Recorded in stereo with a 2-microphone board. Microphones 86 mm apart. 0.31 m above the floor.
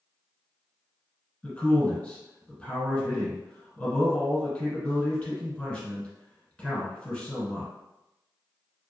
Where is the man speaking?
20° left (ahead or behind), 1.3 m.